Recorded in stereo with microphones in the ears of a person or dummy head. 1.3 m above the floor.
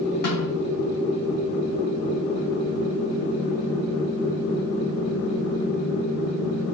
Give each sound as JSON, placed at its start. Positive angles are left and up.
{"t": 0.2, "sound": "a snare drum", "side_deg": 45, "distance_m": 3.0}